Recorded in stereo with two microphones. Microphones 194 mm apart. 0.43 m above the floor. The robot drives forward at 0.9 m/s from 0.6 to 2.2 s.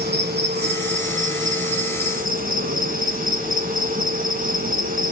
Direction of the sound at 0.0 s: 55° right (ahead or behind).